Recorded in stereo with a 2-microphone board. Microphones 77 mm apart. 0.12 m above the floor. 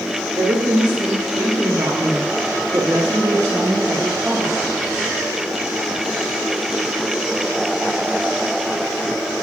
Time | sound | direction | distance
0.4 | a woman speaking | 70° right (ahead or behind) | 4.5 m